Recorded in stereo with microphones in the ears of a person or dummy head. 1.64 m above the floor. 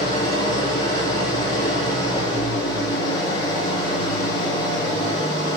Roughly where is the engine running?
Left.